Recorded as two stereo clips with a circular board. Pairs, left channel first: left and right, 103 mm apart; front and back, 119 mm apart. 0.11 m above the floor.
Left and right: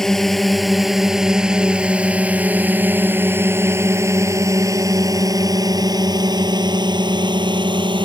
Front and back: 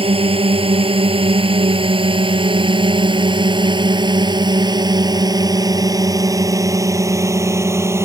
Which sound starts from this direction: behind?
A drone, at 0.0 s.